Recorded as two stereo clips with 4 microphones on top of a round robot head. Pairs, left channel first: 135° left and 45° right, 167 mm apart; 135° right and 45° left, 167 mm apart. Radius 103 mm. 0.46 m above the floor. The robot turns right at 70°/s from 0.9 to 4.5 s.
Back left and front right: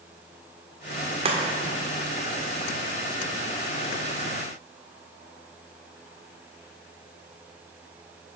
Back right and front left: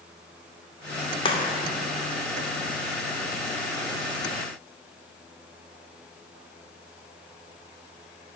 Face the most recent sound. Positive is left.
turn(degrees=140)